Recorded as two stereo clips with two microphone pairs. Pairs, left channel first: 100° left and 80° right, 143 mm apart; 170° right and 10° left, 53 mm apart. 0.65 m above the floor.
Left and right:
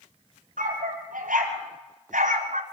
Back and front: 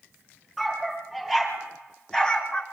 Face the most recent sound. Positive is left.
turn(degrees=-100)